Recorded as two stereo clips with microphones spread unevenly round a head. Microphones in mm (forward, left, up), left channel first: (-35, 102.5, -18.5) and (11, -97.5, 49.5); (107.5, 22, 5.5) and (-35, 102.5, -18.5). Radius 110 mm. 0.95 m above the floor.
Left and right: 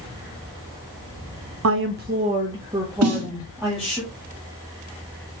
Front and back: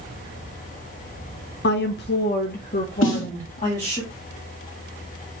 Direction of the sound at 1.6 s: 50° right.